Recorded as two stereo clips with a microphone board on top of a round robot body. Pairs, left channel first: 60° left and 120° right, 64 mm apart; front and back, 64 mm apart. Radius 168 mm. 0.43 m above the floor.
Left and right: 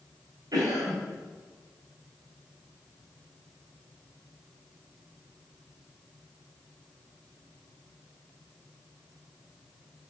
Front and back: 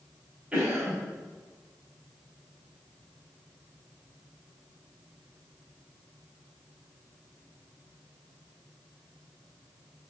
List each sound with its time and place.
0.5 s a cough: 115° right, 3 m